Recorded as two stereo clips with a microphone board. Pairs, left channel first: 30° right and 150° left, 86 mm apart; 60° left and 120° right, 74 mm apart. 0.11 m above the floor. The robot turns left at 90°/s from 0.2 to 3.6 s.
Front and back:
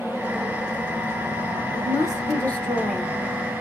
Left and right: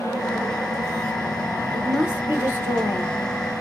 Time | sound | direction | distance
1.7 | a woman speaking | 20° right | 1.7 m